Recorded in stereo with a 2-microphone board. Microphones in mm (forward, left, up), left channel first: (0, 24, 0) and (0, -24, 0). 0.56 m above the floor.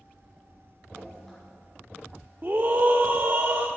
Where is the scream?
45° right (ahead or behind), 0.9 m.